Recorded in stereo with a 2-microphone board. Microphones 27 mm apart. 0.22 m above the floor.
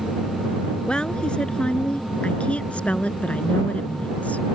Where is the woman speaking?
40° left (ahead or behind); by 4.5 s 65° left (ahead or behind).